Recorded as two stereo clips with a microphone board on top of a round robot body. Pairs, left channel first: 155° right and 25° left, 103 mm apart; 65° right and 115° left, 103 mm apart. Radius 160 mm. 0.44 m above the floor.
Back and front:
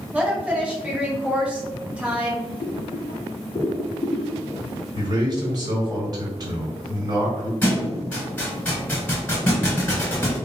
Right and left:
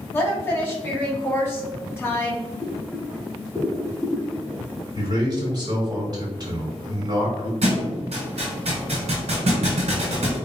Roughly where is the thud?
Behind left.